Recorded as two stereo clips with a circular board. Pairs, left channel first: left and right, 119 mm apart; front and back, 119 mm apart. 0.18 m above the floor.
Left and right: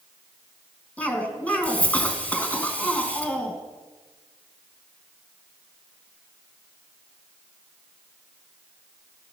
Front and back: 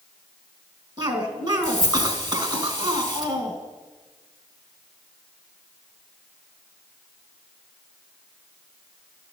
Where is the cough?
160° left, 1.4 m.